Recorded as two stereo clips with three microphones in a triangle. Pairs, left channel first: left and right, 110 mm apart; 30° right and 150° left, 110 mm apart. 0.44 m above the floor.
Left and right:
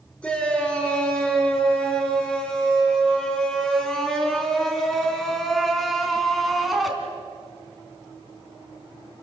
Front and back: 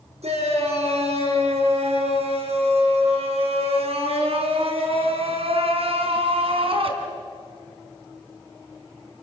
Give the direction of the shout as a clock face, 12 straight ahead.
6 o'clock.